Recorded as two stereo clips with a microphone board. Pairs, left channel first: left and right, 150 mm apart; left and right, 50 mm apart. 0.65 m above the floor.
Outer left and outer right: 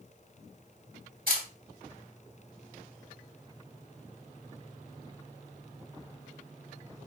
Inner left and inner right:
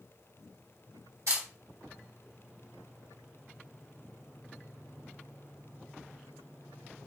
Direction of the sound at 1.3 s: 75° right (ahead or behind).